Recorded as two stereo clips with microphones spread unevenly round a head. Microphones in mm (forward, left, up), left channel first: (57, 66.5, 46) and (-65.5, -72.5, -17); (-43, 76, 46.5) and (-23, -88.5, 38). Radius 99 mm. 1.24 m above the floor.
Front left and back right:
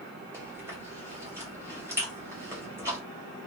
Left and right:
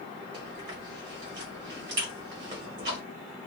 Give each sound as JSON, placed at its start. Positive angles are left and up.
{"t": 0.3, "sound": "chewing", "azimuth_deg": -60, "distance_m": 1.7}